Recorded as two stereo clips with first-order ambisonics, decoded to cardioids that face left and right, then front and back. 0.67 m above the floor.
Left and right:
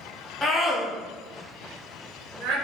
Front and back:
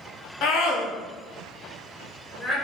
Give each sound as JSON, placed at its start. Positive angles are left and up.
{"t": 0.4, "sound": "a scream", "azimuth_deg": 25, "distance_m": 0.7}